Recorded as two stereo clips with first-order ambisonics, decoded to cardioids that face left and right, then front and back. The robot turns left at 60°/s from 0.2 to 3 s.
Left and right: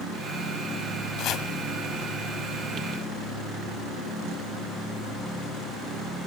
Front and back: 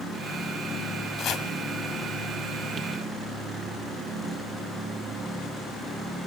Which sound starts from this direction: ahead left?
Chopping, at 1.2 s.